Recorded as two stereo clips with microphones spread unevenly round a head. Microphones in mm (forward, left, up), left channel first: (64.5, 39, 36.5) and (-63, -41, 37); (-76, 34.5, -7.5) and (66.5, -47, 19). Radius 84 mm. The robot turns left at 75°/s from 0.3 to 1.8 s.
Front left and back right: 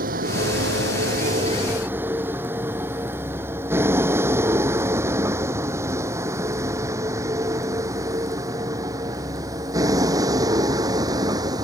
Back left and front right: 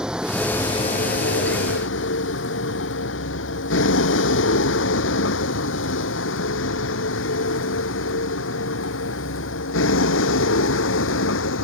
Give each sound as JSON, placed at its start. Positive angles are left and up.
{"t": 0.0, "sound": "a vehicle", "azimuth_deg": -115}